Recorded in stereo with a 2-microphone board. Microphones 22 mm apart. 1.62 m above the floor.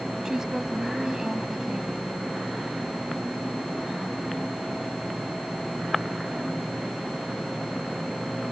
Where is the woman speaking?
25° right (ahead or behind).